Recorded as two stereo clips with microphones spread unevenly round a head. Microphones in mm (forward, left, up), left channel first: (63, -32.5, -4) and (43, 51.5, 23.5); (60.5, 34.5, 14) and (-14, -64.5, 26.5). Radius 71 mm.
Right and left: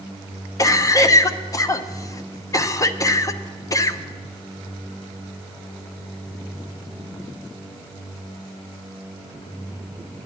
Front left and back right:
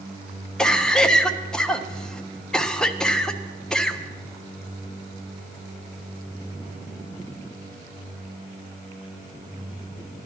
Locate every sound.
0.6 s a cough: 30° right, 1.1 m